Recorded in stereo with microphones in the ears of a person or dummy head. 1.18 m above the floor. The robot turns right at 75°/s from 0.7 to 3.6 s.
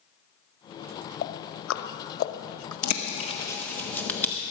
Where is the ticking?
45° left (ahead or behind), 0.9 m; by 2.7 s 20° left (ahead or behind), 0.9 m.